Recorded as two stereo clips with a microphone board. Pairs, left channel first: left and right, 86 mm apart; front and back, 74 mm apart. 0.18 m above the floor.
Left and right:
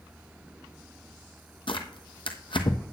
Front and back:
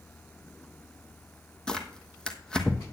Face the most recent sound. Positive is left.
turn(degrees=80)